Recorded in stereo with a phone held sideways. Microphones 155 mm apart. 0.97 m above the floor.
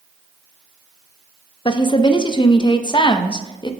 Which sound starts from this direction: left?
A woman speaking, at 1.6 s.